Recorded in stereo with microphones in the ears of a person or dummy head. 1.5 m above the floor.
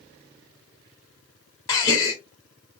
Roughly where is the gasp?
Left.